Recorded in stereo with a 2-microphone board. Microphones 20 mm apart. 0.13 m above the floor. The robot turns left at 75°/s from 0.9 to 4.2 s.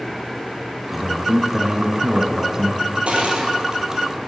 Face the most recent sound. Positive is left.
turn(degrees=-175)